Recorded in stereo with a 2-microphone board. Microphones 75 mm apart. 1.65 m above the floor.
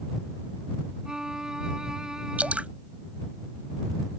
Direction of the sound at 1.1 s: 5° right (ahead or behind).